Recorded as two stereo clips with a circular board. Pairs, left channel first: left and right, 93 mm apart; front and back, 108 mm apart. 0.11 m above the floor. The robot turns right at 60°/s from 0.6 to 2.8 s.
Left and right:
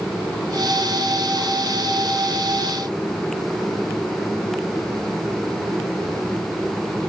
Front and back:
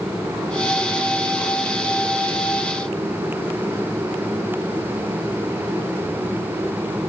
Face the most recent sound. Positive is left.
No sound to turn to.